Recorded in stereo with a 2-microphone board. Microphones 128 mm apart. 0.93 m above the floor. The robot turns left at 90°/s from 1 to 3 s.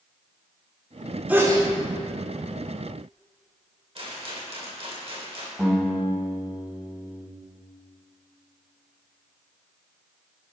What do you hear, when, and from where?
1.3 s a sneeze: 10° right, 2.5 m; by 1.7 s 50° right, 2.5 m
4.0 s a rattle: 50° right (ahead or behind), 2.5 m
5.6 s a guitar: 5° right (ahead or behind), 3.5 m